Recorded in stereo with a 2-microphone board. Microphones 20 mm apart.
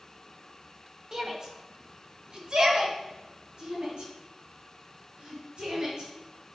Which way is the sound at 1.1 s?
30° right (ahead or behind).